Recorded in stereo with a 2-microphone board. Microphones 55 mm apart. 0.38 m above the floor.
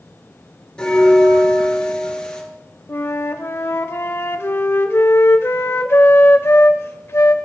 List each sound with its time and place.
0.8 s a bell: 15° left (ahead or behind), 2 m
2.9 s a flute: 50° left (ahead or behind), 0.7 m